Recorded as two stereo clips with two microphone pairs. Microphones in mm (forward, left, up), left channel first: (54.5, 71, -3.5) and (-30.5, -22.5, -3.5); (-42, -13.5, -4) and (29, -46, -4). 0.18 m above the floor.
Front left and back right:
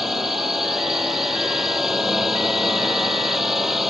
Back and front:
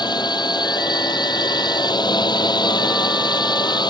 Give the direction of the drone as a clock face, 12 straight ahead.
7 o'clock.